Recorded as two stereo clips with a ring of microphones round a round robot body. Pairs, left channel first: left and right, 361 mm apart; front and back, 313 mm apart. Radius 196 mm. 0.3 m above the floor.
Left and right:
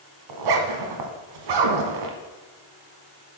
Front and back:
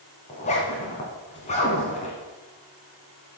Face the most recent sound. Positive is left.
turn(degrees=-70)